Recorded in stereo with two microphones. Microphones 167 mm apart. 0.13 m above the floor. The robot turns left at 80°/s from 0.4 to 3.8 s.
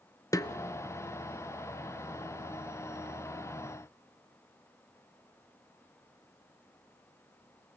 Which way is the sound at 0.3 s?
20° left (ahead or behind).